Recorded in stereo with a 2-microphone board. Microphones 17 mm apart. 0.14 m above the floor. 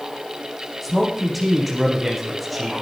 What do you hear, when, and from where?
0.8 s a man speaking: 5° right (ahead or behind), 7.5 m